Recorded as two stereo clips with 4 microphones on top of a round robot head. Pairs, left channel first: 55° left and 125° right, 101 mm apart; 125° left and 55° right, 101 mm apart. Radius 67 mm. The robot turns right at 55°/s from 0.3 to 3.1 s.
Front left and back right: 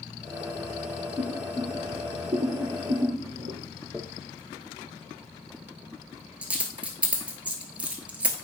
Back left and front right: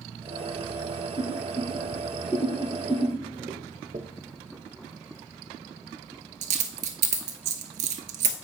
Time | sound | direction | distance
1.2 | boiling | 135° left | 1.8 m
3.9 | a dropped coin | 50° right | 0.7 m